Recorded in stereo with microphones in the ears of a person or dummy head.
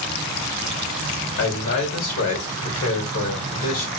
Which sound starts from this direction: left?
A man speaking, at 1.4 s.